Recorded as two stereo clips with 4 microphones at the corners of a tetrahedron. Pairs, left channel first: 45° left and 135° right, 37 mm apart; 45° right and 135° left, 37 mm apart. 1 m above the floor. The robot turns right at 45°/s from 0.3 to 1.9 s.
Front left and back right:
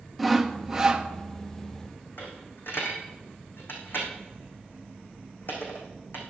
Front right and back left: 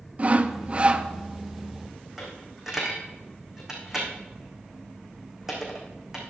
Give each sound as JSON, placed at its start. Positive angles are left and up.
{"t": 0.2, "sound": "sawing", "azimuth_deg": 135, "distance_m": 0.8}
{"t": 2.2, "sound": "a dropped coin", "azimuth_deg": 60, "distance_m": 3.5}